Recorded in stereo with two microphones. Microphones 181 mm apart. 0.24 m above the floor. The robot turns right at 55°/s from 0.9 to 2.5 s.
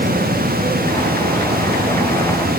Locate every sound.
Only background noise.